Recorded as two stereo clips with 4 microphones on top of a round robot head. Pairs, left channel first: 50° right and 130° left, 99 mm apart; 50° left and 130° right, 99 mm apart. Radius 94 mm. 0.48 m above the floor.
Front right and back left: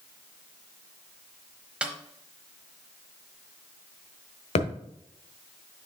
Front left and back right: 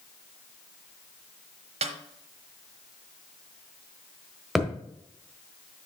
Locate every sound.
1.8 s a snare drum: 150° right, 1.0 m
4.5 s a thud: 45° right, 1.2 m